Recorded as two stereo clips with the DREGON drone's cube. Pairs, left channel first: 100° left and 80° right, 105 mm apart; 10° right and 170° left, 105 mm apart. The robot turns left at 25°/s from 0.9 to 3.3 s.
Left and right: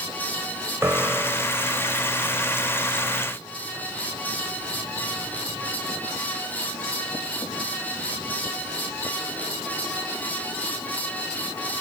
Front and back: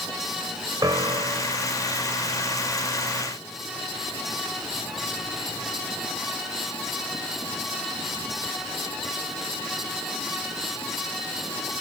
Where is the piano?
145° right, 1.6 m; by 1.7 s 165° right, 1.6 m.